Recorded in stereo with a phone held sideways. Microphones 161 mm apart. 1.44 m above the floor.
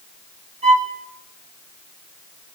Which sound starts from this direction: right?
A violin, at 0.6 s.